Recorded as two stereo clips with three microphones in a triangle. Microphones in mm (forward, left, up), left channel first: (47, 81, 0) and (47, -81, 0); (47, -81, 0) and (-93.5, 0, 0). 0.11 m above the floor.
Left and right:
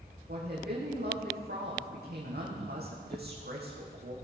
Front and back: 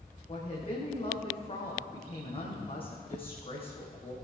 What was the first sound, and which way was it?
A woman speaking, 85° right.